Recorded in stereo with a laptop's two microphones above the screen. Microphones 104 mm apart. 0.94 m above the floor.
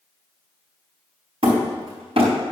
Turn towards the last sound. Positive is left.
turn(degrees=-70)  # may be behind; listen again after turning